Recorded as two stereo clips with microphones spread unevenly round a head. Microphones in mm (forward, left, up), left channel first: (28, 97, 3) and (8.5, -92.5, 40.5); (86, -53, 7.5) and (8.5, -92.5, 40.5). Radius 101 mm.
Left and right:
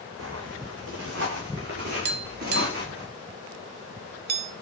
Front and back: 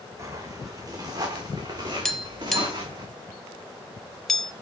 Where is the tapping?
65° right, 0.8 m.